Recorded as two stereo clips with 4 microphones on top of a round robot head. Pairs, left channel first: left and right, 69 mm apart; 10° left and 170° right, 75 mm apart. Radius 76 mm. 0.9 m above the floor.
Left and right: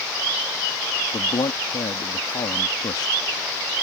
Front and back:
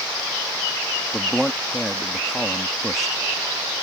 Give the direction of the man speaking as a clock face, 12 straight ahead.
9 o'clock.